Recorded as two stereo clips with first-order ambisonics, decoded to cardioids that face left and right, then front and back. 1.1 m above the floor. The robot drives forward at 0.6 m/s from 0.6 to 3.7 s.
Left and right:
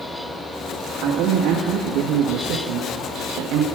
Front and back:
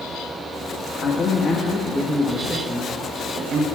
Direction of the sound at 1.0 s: 55° right.